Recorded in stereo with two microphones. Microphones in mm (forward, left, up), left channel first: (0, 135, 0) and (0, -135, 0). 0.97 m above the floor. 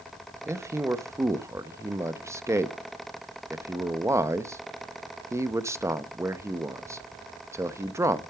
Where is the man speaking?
10° right (ahead or behind), 0.7 m.